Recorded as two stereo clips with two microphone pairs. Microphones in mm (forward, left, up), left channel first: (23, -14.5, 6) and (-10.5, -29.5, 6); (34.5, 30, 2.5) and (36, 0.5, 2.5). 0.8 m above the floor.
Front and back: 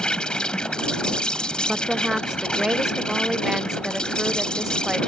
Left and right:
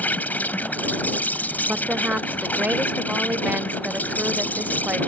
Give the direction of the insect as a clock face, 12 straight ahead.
9 o'clock.